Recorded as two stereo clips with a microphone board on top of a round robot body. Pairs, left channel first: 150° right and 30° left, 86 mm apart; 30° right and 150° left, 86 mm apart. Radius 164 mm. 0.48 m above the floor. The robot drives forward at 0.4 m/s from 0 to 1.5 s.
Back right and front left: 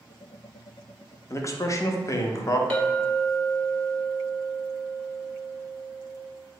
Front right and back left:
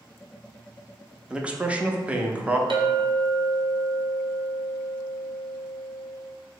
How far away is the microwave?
No microwave in this recording.